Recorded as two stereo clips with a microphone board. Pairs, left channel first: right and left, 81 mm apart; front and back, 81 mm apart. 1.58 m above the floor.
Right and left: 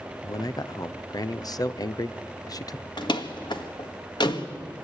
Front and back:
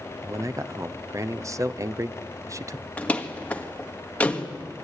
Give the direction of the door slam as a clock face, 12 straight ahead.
2 o'clock.